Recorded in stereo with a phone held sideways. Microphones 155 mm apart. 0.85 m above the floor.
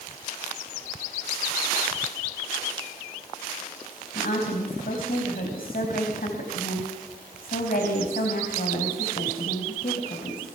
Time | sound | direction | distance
4.1 | a woman speaking | 70° left (ahead or behind) | 4.5 m